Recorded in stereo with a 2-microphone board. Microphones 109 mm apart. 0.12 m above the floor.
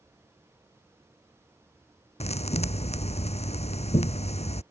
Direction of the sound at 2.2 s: 80° left.